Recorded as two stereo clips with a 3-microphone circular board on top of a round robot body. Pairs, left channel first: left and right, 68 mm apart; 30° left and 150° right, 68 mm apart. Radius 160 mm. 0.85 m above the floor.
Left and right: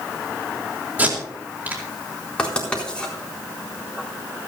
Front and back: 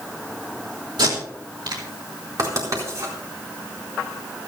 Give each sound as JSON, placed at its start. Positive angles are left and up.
{"t": 1.0, "sound": "tape being pulled", "azimuth_deg": -155, "distance_m": 4.0}
{"t": 2.4, "sound": "writing", "azimuth_deg": 165, "distance_m": 4.0}